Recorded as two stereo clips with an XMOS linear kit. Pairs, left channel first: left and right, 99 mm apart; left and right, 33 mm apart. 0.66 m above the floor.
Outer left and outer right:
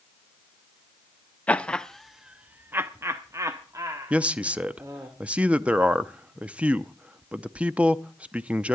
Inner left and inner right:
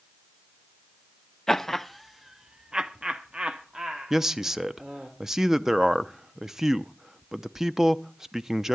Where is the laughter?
15° left (ahead or behind), 0.7 m; by 5.1 s 30° right (ahead or behind), 1.7 m.